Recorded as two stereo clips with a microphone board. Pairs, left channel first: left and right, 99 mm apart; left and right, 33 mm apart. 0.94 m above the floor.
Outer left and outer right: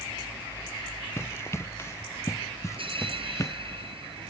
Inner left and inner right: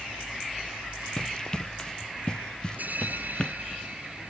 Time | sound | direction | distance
1.2 | running footsteps | 25° left (ahead or behind) | ?
2.8 | a bell | 60° right (ahead or behind) | ?